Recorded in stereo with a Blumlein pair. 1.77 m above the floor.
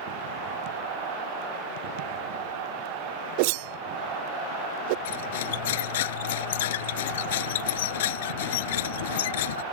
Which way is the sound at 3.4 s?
45° right.